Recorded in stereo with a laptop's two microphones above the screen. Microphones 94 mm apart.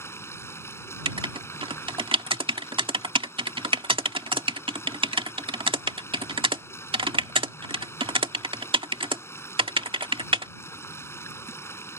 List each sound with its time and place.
0.0 s running water: 25° left (ahead or behind)
1.1 s writing: 70° right (ahead or behind)